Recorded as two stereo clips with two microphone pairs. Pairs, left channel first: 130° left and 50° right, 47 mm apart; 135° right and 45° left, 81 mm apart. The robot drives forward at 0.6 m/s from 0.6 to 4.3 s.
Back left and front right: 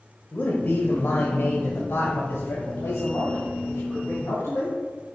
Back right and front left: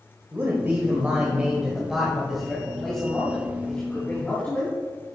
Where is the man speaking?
100° left, 1.3 m; by 4.7 s 155° left, 2.5 m.